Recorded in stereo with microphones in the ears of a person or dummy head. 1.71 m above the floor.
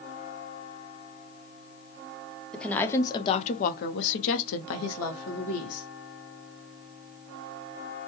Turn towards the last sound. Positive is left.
turn(degrees=75)  # may be behind; listen again after turning